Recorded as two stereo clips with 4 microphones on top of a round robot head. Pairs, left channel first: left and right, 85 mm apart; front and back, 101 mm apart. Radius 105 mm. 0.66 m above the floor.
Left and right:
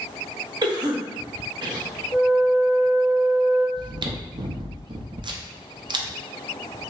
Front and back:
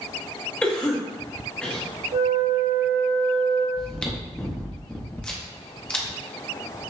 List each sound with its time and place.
0.6 s a cough: 80° right, 1.3 m
2.1 s a flute: 170° left, 1.1 m
3.8 s chewing: 80° right, 0.6 m